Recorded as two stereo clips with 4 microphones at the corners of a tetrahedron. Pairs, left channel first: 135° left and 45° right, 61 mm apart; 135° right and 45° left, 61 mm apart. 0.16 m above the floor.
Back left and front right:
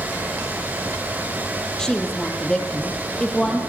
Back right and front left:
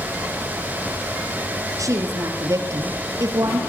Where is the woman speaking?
60° left, 5 m.